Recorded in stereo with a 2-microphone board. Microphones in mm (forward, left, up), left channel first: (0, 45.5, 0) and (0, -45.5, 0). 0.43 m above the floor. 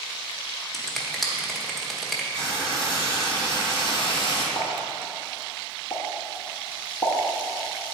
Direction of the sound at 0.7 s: Centre (ahead or behind).